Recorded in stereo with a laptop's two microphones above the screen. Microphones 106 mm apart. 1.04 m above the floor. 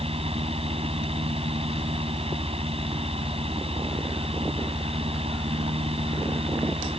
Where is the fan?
70° right (ahead or behind).